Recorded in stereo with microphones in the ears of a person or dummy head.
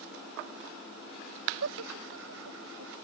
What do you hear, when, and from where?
1.6 s laughter: 75° right (ahead or behind)